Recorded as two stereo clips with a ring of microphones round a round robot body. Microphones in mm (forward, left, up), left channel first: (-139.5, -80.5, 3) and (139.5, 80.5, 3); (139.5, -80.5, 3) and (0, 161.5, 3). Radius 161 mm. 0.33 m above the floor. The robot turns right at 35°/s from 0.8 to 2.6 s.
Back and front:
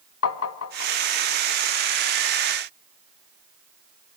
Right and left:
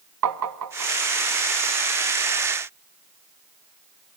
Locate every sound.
0.2 s tapping: 160° left, 1.2 m; by 0.9 s 165° left, 1.2 m